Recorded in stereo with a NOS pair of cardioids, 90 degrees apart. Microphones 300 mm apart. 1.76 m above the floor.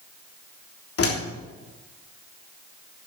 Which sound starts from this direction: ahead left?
A door slam, at 1.0 s.